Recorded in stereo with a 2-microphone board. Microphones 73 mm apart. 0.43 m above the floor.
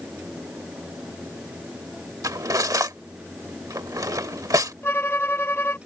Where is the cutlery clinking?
55° right (ahead or behind).